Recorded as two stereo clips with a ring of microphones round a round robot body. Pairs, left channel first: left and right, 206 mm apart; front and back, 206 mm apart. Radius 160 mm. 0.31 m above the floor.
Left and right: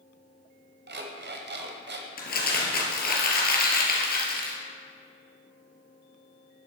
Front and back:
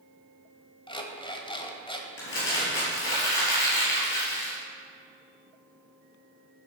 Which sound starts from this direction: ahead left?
Crumpling, at 2.2 s.